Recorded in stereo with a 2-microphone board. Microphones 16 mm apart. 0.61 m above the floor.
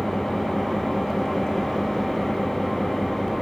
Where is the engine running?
25° left (ahead or behind), 7.5 m.